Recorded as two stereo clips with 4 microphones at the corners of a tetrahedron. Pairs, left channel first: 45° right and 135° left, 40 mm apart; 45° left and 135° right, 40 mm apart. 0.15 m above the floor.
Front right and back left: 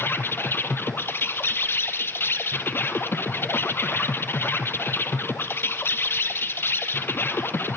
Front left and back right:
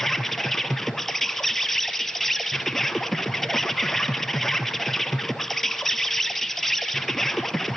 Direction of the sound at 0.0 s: 35° right.